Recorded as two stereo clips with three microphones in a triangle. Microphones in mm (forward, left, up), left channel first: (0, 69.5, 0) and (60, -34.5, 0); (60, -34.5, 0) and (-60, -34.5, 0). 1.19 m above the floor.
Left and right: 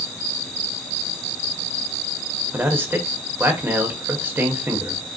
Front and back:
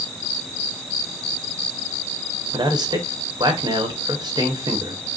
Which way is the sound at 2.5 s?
130° right.